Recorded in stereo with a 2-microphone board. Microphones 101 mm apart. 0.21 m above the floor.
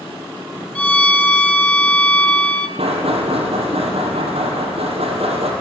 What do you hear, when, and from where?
0.8 s a violin: 15° left (ahead or behind), 0.7 m
2.8 s knocking: 80° right, 4.5 m